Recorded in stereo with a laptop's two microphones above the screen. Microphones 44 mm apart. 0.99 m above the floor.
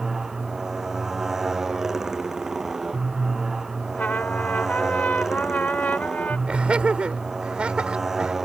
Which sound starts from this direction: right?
Laughter, at 6.5 s.